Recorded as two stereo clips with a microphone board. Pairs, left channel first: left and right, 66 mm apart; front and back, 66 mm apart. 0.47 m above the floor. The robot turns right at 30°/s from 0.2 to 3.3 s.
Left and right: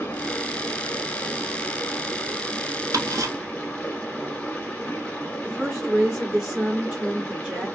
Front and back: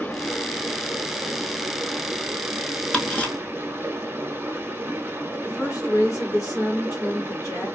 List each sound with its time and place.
0.0 s running water: 55° left, 0.8 m; by 7.8 s 150° left, 0.8 m
2.9 s ticking: 75° right, 0.8 m; by 3.3 s 65° right, 0.8 m
5.4 s a woman speaking: 15° right, 2 m